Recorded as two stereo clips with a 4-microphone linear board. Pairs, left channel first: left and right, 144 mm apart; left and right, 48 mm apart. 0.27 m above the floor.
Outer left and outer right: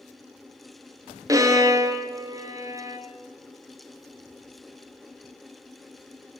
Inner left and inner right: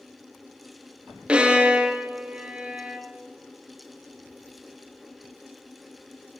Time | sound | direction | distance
1.3 | a violin | 25° right (ahead or behind) | 0.8 m